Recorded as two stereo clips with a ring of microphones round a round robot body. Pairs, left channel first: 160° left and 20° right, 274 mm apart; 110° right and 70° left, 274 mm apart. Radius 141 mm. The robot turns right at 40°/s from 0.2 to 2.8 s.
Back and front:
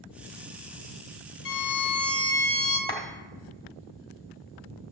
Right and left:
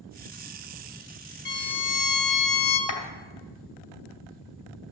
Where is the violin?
160° right, 1.5 m; by 2.8 s 105° right, 1.5 m.